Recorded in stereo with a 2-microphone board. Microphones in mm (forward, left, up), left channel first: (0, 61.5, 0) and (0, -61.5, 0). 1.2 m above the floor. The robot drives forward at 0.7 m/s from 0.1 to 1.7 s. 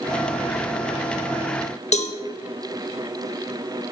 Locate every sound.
1.9 s a cowbell: 65° left (ahead or behind), 1.7 m